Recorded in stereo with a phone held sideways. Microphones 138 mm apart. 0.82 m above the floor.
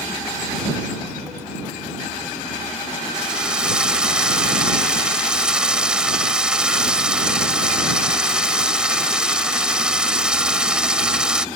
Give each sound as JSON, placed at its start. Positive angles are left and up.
{"t": 3.1, "sound": "a drill", "side_deg": -5}